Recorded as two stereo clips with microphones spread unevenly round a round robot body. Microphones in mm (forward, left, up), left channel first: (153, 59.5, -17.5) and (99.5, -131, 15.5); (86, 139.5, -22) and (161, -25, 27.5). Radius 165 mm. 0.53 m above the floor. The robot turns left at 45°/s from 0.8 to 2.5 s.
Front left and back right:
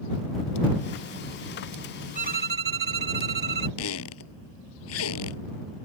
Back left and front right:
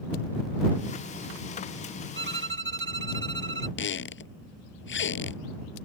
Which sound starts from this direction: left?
A squeak, at 3.8 s.